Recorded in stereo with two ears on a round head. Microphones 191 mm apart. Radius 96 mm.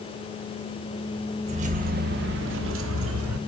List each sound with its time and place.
1.4 s keys jangling: 35° right (ahead or behind), 1.2 m; by 3.4 s 85° right, 1.4 m